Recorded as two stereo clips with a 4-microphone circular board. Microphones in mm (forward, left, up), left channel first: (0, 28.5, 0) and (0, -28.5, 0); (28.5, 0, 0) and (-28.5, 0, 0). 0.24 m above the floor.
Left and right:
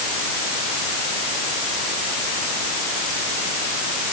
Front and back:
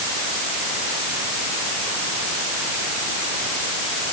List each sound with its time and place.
Only background noise.